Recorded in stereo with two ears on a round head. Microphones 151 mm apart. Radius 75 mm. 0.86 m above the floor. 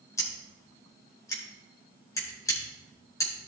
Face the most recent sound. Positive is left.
turn(degrees=20)  # may be behind; listen again after turning